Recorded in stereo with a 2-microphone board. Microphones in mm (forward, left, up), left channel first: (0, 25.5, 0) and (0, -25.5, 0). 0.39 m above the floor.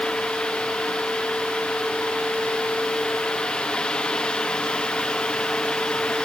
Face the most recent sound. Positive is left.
No sound to turn to.